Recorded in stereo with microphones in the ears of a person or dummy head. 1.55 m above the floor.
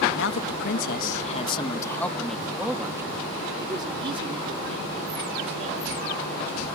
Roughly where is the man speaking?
Left.